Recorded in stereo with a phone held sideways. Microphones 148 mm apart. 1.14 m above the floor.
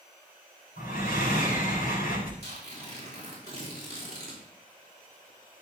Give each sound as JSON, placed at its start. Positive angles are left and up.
{"t": 0.8, "sound": "breathing", "side_deg": 80, "distance_m": 4.5}
{"t": 2.4, "sound": "tearing paper", "side_deg": -45, "distance_m": 4.5}